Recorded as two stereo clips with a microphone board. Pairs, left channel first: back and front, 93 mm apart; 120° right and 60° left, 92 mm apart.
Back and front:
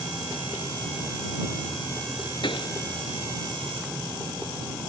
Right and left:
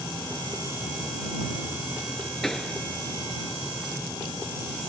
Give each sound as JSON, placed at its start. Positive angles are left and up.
{"t": 2.4, "sound": "a pop", "azimuth_deg": 155}